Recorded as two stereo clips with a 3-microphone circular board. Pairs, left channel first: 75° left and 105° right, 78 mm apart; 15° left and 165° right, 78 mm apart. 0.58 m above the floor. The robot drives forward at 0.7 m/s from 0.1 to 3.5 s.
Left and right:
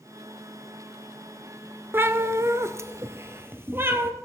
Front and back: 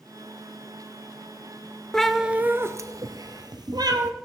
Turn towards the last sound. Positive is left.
turn(degrees=-160)